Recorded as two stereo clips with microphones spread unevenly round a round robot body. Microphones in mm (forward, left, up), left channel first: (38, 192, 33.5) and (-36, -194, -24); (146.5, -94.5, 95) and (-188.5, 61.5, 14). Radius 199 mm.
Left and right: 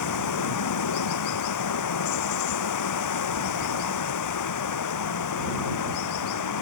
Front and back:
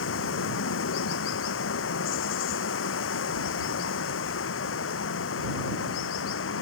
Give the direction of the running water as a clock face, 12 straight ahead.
11 o'clock.